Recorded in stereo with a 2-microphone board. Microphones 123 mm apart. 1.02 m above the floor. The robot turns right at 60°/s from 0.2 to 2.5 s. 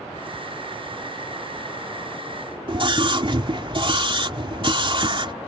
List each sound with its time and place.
2.7 s a scream: 45° right (ahead or behind)